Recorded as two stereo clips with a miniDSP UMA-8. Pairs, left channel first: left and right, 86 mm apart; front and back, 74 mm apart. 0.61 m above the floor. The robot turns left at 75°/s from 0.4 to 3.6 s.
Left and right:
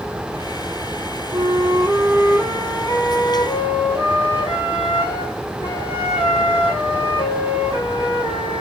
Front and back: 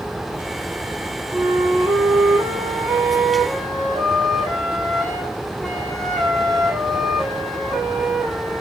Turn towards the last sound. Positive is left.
turn(degrees=85)